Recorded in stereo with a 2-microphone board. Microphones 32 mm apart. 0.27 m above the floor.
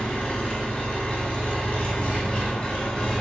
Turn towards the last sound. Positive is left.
turn(degrees=40)  # may be behind; listen again after turning